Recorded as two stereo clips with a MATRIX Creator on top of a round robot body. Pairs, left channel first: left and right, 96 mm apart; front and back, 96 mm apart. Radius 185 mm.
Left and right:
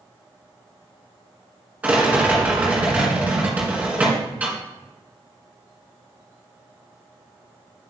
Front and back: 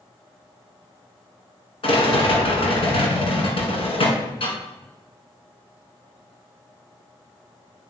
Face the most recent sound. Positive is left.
turn(degrees=-15)